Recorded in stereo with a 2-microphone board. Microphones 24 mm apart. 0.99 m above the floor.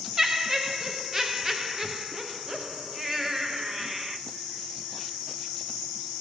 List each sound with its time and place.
0.2 s laughter: 15° right (ahead or behind), 0.6 m